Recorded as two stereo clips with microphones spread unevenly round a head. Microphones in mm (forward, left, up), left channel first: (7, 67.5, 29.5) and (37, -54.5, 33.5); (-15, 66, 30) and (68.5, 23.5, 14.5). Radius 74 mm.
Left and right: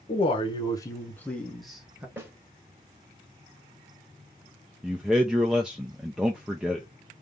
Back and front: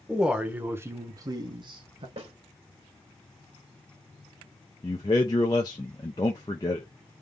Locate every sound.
0.1 s a man speaking: 60° left, 1.1 m; by 2.1 s straight ahead, 1.1 m
2.2 s a snare drum: straight ahead, 2.5 m
4.8 s a man speaking: 160° right, 0.5 m